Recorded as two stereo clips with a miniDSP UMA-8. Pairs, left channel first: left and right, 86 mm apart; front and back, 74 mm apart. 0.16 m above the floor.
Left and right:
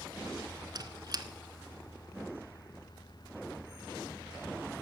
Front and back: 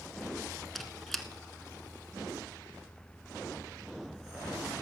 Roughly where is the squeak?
Right.